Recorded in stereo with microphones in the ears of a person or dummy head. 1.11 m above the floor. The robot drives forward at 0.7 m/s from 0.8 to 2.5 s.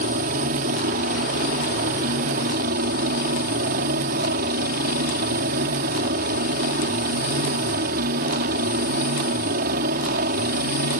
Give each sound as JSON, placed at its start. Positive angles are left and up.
{"t": 0.0, "sound": "a helicopter", "side_deg": -45}